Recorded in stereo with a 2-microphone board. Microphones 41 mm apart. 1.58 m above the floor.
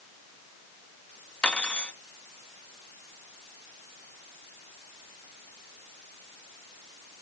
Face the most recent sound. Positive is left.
turn(degrees=25)  # may be behind; listen again after turning